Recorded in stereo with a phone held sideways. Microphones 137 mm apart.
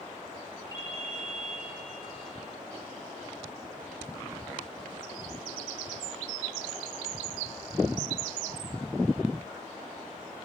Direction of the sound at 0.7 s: 30° left (ahead or behind).